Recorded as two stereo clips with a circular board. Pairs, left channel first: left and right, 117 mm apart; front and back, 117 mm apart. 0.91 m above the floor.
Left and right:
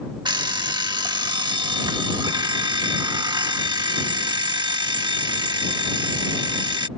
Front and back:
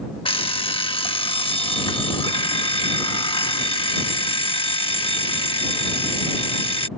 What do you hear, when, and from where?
0.2 s an alarm clock: 40° right